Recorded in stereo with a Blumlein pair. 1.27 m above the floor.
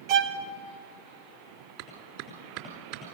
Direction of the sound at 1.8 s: 45° right.